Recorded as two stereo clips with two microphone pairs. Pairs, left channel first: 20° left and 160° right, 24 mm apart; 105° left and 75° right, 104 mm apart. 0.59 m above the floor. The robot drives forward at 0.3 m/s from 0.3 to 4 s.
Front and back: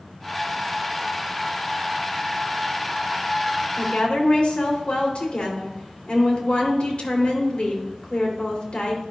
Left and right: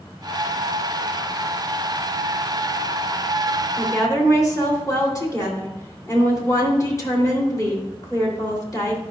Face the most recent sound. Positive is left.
turn(degrees=50)